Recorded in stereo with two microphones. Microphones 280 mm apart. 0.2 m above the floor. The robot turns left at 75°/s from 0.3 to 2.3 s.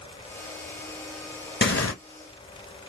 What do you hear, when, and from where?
1.6 s tearing paper: 40° left (ahead or behind), 0.7 m; by 1.9 s 65° left (ahead or behind), 0.7 m